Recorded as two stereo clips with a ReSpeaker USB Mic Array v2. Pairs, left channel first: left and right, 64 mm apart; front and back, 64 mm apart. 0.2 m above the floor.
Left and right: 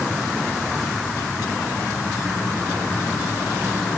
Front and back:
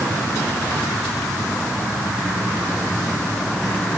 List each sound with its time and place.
Only background noise.